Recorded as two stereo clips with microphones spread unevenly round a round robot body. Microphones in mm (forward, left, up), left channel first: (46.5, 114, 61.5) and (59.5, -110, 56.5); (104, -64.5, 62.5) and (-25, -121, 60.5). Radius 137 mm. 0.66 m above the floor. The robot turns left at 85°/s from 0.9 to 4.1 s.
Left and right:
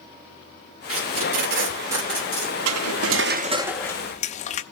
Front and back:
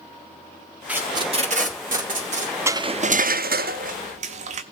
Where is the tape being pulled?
75° right, 3 m; by 2.5 s 145° left, 3 m.